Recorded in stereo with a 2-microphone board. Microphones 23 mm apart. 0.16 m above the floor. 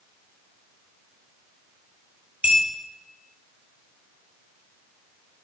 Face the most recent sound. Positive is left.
turn(degrees=-65)  # may be behind; listen again after turning